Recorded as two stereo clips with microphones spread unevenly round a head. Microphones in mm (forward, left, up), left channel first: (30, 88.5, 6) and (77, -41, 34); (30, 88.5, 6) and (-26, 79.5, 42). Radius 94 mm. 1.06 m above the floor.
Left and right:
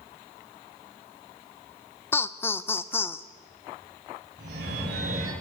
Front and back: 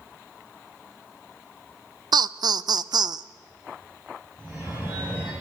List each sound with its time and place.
2.1 s laughter: 170° left, 0.7 m
4.4 s a phone ringing: 90° right, 5.5 m